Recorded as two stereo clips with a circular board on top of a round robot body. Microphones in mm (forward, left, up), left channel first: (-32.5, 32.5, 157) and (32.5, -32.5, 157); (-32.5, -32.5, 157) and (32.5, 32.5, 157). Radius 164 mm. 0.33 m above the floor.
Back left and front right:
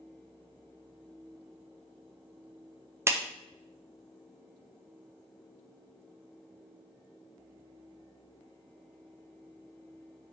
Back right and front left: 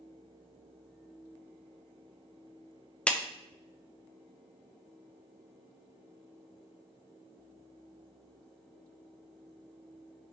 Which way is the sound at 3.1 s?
70° right.